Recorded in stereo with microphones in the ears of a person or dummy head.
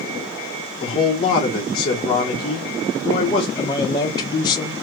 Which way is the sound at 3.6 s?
25° left (ahead or behind).